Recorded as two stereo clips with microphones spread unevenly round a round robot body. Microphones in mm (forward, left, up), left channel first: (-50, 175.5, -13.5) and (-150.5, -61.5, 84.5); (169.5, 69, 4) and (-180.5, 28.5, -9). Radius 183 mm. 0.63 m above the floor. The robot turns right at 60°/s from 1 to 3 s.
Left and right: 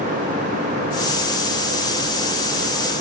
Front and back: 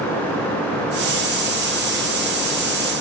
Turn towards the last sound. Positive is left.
No sound to turn to.